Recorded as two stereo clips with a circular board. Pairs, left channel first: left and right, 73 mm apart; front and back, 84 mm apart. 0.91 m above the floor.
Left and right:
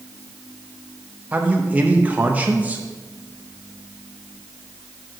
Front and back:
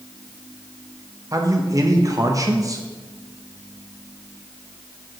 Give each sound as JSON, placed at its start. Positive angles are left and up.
{"t": 1.3, "sound": "a man speaking", "azimuth_deg": -150, "distance_m": 0.7}